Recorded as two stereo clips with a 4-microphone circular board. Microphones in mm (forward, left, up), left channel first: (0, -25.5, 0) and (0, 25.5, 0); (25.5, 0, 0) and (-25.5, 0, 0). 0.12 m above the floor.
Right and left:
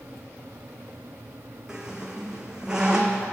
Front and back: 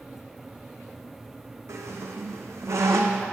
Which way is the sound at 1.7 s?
165° left.